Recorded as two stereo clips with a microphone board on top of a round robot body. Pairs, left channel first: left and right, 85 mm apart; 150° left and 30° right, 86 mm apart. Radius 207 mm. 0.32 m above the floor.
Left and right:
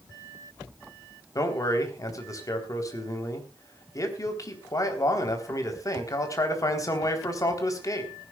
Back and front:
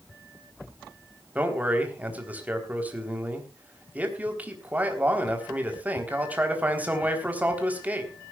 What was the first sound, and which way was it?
A man speaking, 40° left.